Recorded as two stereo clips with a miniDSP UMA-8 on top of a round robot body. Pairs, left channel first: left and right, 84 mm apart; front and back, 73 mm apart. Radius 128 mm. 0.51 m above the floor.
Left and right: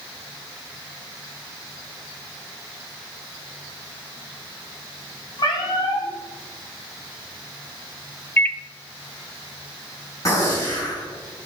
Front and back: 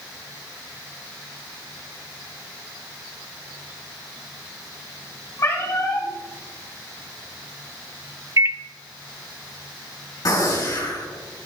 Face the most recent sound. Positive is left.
turn(degrees=40)